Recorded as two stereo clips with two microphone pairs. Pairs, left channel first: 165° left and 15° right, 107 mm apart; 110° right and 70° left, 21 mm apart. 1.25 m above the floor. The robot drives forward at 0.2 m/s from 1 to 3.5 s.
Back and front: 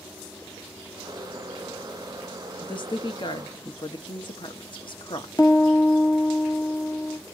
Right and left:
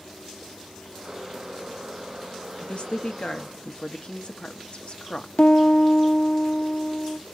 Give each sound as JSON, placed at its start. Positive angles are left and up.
{"t": 2.6, "sound": "a woman speaking", "azimuth_deg": -145, "distance_m": 1.3}
{"t": 5.4, "sound": "a piano", "azimuth_deg": -135, "distance_m": 1.3}